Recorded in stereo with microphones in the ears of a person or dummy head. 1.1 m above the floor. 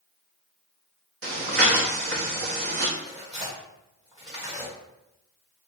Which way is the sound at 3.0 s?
20° right (ahead or behind).